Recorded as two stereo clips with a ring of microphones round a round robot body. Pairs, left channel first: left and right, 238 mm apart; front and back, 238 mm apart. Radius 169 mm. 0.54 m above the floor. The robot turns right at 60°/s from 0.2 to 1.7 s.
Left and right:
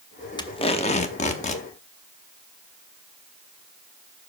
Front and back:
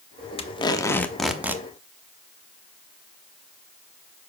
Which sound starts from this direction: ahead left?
Tape being pulled, at 0.4 s.